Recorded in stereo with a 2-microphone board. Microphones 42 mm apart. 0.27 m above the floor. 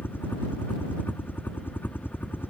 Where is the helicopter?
55° left (ahead or behind).